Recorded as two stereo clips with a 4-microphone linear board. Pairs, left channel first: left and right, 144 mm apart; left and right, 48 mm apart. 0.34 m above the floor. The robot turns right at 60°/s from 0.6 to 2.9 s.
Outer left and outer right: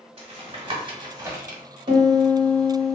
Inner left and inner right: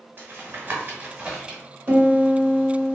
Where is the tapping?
35° right (ahead or behind), 0.9 m; by 1.6 s 10° right (ahead or behind), 0.9 m.